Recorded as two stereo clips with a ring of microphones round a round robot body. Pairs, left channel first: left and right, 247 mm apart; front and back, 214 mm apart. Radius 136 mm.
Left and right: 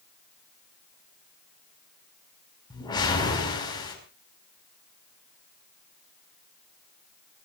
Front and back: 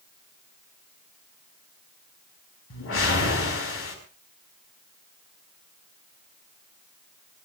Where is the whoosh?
15° left, 5.5 m.